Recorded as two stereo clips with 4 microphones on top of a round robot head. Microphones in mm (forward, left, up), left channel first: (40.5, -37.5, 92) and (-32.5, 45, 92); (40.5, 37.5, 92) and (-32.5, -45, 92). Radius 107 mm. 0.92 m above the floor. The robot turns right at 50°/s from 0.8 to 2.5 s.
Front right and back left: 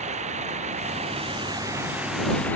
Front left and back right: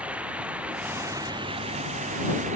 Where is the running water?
150° left; by 2.6 s 125° right.